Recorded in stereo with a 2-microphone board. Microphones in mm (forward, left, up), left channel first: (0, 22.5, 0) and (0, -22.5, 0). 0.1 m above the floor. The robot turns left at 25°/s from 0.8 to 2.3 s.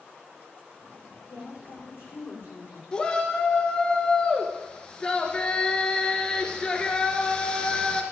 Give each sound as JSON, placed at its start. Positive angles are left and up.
{"t": 1.3, "sound": "a woman speaking", "side_deg": 70, "distance_m": 6.5}
{"t": 2.9, "sound": "a shout", "side_deg": 15, "distance_m": 1.5}